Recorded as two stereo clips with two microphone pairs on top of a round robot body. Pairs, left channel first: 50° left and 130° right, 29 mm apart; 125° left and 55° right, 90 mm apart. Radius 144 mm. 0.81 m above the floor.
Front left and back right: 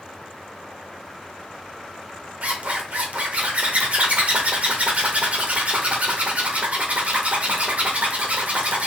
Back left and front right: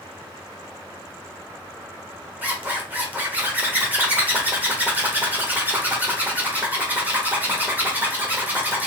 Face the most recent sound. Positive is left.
turn(degrees=-130)